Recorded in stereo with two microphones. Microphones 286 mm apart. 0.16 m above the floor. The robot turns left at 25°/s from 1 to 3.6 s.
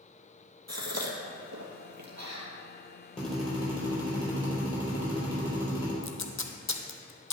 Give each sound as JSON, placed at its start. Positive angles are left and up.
{"t": 0.7, "sound": "a gasp", "side_deg": -65, "distance_m": 1.6}
{"t": 3.2, "sound": "a drill", "side_deg": 25, "distance_m": 4.0}
{"t": 6.0, "sound": "tape being pulled", "side_deg": 85, "distance_m": 0.9}